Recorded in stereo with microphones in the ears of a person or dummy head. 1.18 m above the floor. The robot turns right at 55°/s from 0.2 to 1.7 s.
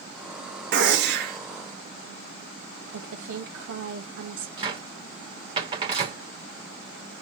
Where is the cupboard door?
30° right (ahead or behind), 1.1 m.